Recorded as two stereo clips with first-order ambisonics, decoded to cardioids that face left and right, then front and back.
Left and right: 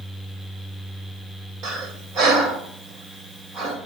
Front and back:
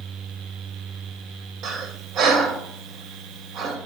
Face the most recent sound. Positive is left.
turn(degrees=-135)